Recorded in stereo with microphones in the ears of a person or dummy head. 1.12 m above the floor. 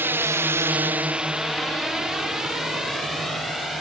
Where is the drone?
10° right (ahead or behind); by 3.8 s 5° left (ahead or behind).